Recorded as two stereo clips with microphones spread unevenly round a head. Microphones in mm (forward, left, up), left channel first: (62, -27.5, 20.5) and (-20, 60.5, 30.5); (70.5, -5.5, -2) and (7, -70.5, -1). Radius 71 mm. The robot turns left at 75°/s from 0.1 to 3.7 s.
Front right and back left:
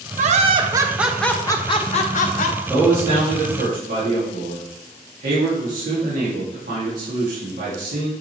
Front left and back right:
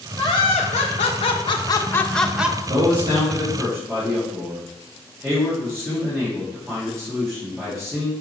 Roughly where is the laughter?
Behind left.